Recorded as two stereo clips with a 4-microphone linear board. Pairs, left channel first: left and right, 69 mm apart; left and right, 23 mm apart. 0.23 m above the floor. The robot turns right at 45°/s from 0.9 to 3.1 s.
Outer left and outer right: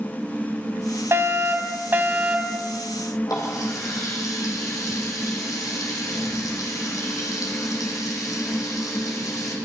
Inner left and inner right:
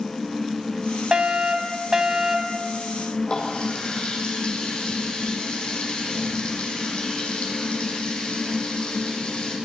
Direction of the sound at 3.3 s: 55° left (ahead or behind).